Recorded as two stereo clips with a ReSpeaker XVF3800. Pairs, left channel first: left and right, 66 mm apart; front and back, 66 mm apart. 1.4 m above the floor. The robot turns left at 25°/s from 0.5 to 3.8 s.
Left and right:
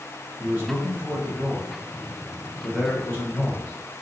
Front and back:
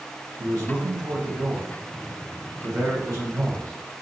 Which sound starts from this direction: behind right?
A man speaking, at 0.4 s.